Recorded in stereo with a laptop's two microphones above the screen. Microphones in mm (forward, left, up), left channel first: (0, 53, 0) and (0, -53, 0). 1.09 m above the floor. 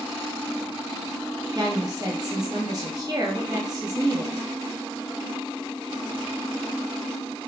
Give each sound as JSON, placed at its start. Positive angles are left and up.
{"t": 1.6, "sound": "a woman speaking", "side_deg": -40, "distance_m": 1.4}